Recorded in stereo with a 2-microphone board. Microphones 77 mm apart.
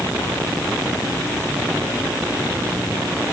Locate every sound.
Only background noise.